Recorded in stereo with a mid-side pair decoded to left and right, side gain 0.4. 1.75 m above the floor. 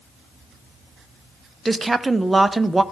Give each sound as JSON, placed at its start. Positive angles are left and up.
{"t": 1.6, "sound": "a woman speaking", "azimuth_deg": -20, "distance_m": 0.7}